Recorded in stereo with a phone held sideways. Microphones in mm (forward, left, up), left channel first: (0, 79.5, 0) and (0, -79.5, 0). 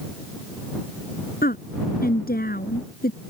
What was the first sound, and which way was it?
A woman speaking, 70° left (ahead or behind).